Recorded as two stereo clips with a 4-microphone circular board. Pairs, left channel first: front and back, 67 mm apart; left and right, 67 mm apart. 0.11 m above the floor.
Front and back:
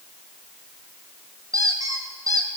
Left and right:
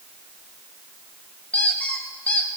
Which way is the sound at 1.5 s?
165° left.